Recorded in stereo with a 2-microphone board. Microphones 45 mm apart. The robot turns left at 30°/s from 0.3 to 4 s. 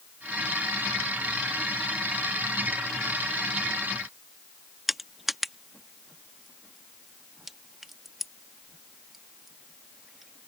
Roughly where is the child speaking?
No child speaking in this recording.